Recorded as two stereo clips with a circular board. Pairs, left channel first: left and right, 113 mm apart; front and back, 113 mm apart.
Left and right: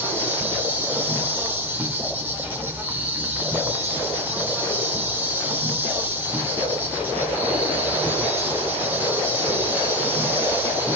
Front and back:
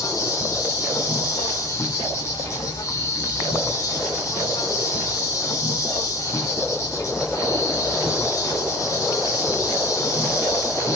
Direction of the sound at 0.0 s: 30° right.